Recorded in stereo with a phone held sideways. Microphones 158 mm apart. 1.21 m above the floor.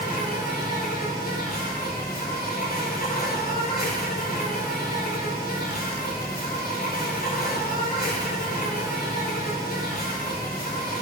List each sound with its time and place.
0.0 s an insect: 75° left (ahead or behind), 2.5 m